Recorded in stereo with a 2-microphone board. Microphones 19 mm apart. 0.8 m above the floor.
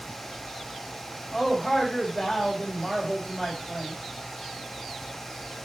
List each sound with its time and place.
1.3 s a man speaking: 25° left (ahead or behind), 4.5 m